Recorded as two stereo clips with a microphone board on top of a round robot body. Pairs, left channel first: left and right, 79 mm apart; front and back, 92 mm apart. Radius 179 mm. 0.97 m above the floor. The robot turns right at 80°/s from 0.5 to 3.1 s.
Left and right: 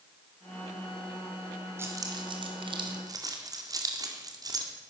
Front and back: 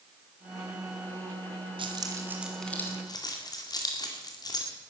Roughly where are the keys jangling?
Behind right.